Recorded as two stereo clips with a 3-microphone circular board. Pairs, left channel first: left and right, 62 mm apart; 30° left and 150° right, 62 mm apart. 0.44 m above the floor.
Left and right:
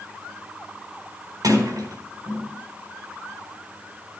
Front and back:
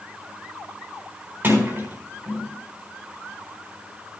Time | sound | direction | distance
1.4 | a sliding door | 100° right | 4 m